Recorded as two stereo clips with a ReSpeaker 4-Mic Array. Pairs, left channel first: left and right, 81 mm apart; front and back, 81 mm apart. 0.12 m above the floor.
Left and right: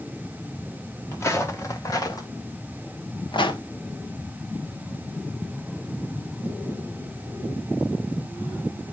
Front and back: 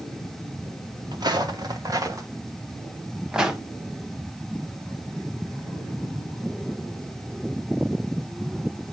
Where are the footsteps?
145° left, 1.7 m; by 3.6 s 95° left, 1.1 m.